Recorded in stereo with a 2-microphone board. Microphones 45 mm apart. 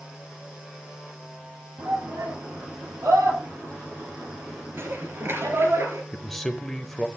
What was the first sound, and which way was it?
A shout, 80° right.